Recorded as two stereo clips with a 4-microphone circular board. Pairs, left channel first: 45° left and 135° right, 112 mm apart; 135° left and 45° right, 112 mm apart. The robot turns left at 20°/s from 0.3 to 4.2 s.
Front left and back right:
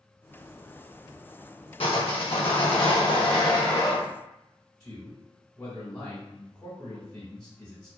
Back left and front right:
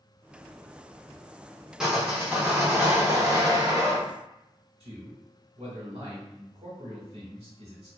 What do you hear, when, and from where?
1.8 s sawing: 40° left, 0.9 m; by 4.0 s 5° right, 0.9 m
4.8 s a man speaking: 20° right, 1.2 m